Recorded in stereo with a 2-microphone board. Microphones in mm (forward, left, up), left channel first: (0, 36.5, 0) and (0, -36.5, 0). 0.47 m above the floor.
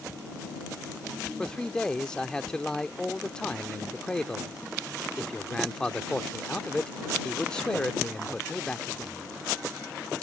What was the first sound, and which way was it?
A man speaking, 10° left (ahead or behind).